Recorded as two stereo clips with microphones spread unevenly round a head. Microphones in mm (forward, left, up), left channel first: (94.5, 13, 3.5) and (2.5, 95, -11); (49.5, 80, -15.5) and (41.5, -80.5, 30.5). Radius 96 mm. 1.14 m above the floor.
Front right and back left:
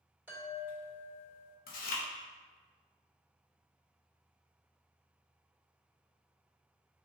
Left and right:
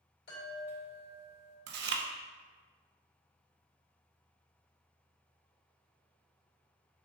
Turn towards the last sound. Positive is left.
turn(degrees=-75)